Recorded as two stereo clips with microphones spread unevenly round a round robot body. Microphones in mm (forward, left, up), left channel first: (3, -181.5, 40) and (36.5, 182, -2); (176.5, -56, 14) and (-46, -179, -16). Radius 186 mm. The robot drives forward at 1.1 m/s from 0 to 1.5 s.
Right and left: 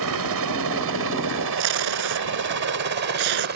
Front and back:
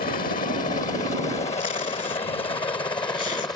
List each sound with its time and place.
0.0 s a helicopter: 85° left; by 3.6 s 105° left
1.6 s tape being pulled: 100° left